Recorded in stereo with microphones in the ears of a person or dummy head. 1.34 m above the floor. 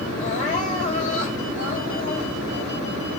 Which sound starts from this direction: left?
Crying, at 0.2 s.